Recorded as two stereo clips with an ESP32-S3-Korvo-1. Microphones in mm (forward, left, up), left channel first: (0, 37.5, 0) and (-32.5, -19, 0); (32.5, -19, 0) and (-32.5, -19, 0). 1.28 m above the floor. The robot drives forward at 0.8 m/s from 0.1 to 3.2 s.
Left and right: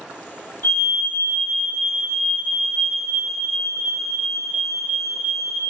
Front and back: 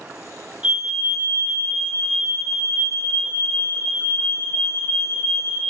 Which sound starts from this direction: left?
A fire alarm, at 0.6 s.